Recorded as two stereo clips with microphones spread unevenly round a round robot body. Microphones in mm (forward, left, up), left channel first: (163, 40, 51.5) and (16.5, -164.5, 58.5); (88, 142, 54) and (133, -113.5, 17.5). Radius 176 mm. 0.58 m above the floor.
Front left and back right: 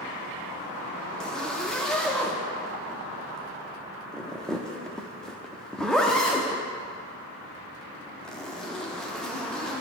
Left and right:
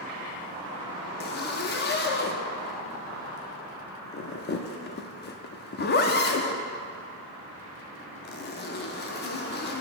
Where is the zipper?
140° left, 0.5 m.